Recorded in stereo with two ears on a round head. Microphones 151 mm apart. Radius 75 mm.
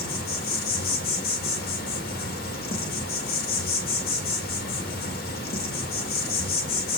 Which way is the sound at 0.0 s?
60° left (ahead or behind).